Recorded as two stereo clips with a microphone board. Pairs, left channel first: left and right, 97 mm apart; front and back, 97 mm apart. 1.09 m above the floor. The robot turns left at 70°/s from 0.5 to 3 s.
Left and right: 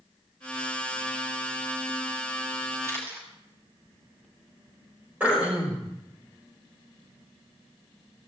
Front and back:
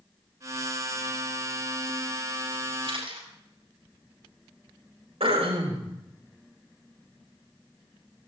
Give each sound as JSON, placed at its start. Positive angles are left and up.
{"t": 2.8, "sound": "a camera shutter", "azimuth_deg": -150, "distance_m": 6.0}
{"t": 5.2, "sound": "throat clearing", "azimuth_deg": -165, "distance_m": 5.5}